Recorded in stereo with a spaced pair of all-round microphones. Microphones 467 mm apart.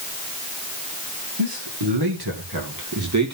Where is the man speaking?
65° right (ahead or behind), 2.5 m; by 3.3 s 35° right (ahead or behind), 2.5 m.